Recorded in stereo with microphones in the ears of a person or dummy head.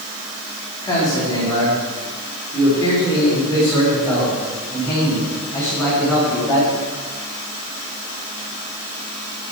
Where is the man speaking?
25° left (ahead or behind), 4 m; by 6.7 s 20° left (ahead or behind), 8 m.